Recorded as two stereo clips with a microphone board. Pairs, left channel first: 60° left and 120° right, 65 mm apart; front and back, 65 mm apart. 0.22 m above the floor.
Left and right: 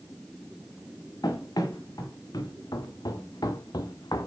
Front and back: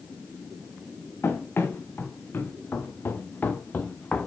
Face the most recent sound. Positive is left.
turn(degrees=70)